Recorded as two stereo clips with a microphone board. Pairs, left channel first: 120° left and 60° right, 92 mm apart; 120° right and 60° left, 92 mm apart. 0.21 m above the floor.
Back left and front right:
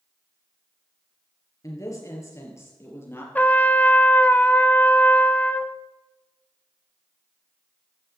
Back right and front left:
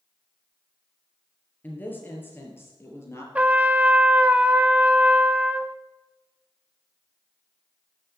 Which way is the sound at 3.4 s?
100° left.